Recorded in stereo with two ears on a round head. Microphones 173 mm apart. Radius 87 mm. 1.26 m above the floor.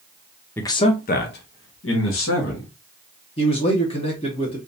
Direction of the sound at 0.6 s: 10° left (ahead or behind).